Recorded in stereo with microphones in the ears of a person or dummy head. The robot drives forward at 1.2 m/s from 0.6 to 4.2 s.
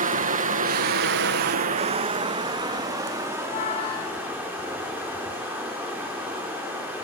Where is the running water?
40° right (ahead or behind), 1.0 m; by 7.0 s 10° right (ahead or behind), 4 m.